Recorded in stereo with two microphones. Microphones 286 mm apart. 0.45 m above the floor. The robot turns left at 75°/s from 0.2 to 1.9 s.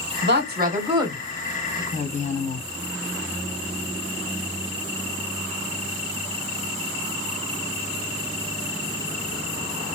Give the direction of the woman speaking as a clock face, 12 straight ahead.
3 o'clock.